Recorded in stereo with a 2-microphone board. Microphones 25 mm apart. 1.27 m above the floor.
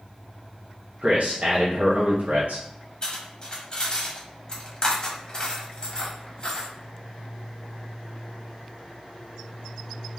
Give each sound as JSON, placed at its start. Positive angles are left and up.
{"t": 1.0, "sound": "a man speaking", "side_deg": -60, "distance_m": 0.7}
{"t": 3.0, "sound": "cutlery clinking", "side_deg": 30, "distance_m": 0.9}